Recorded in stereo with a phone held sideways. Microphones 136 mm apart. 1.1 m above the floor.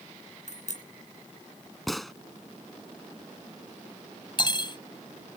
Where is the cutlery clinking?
35° left (ahead or behind).